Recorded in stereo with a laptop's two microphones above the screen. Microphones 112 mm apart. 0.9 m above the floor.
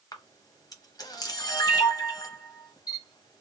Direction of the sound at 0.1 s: 35° left (ahead or behind).